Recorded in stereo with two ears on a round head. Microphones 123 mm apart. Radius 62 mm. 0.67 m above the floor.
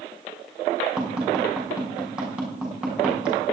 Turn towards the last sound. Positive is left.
turn(degrees=-5)  # may be behind; listen again after turning